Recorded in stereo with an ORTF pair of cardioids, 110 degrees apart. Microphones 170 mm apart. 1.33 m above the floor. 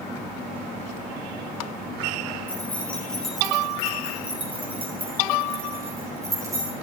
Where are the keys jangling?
10° left, 4.5 m; by 6.7 s 20° right, 8.5 m.